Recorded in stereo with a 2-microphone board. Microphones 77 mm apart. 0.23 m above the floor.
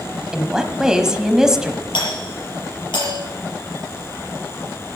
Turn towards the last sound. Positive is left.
turn(degrees=75)  # may be behind; listen again after turning